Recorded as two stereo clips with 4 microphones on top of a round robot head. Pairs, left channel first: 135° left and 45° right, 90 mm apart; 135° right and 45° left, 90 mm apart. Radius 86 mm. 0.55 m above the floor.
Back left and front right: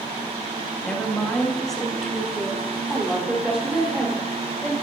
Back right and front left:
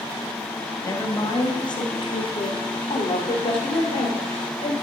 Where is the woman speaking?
150° right, 1.3 m; by 4.7 s 120° right, 3 m.